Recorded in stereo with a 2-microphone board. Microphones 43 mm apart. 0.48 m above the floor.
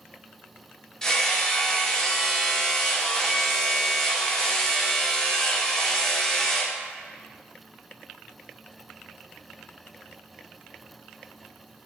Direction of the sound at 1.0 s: 20° left (ahead or behind).